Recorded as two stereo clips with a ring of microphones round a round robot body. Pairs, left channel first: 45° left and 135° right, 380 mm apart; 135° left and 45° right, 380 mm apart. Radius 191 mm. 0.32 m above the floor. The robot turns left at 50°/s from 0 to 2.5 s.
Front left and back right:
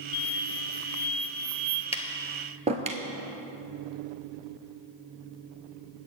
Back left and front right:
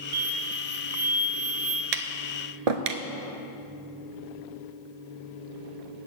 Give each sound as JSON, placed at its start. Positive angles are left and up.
{"t": 0.1, "sound": "an explosion", "azimuth_deg": 10, "distance_m": 0.8}
{"t": 1.9, "sound": "tapping", "azimuth_deg": -30, "distance_m": 0.9}